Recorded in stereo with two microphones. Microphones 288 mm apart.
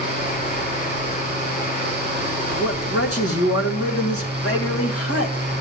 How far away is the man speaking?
About 2 m.